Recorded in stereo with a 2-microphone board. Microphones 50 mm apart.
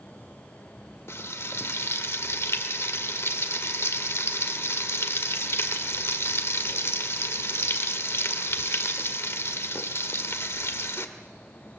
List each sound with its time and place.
1.1 s frying: 60° left (ahead or behind), 1.7 m